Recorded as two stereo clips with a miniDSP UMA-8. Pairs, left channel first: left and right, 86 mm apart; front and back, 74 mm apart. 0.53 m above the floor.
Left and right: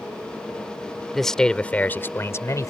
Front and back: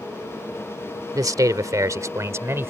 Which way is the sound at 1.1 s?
175° left.